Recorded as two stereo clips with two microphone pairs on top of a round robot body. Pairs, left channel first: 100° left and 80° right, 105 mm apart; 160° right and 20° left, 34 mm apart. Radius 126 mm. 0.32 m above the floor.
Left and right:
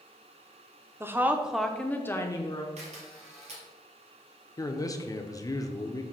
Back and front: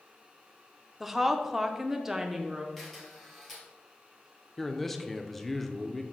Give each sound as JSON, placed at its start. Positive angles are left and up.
{"t": 1.0, "sound": "a woman speaking", "azimuth_deg": -50, "distance_m": 1.0}
{"t": 2.8, "sound": "a camera shutter", "azimuth_deg": -75, "distance_m": 2.0}
{"t": 4.6, "sound": "a man speaking", "azimuth_deg": 100, "distance_m": 0.9}